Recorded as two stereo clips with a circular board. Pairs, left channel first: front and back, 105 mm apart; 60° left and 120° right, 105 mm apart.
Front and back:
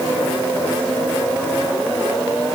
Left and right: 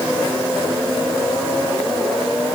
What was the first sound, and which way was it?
Only background noise.